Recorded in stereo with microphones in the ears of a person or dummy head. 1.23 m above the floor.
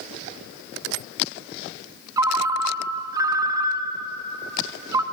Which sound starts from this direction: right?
A ringtone, at 2.2 s.